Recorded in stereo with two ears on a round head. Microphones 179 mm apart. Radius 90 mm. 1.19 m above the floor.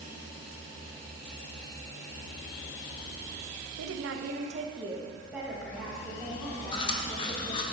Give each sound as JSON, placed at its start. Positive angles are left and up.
{"t": 3.8, "sound": "a woman speaking", "side_deg": -75, "distance_m": 0.6}
{"t": 6.7, "sound": "chewing", "side_deg": 25, "distance_m": 0.6}